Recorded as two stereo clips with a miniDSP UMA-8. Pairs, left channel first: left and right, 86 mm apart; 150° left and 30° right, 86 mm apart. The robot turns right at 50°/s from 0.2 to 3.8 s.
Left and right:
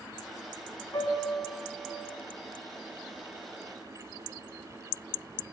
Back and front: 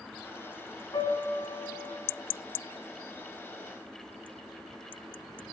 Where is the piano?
125° left, 2.5 m; by 2.0 s straight behind, 2.5 m.